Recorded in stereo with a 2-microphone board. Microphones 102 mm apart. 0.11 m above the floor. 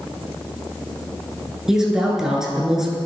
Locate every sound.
1.7 s a woman speaking: 5° right (ahead or behind), 1.4 m